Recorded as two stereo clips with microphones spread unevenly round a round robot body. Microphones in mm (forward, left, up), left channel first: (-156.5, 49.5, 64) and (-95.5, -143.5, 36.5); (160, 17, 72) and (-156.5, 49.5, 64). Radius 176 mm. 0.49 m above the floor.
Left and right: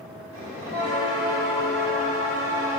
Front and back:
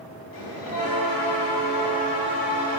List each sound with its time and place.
0.3 s a bell: 40° right, 1.0 m